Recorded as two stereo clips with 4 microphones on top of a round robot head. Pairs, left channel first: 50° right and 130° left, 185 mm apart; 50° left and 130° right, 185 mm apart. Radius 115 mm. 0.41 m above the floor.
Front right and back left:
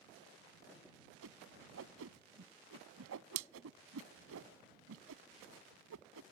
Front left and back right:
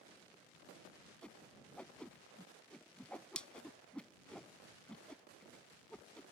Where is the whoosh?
135° left.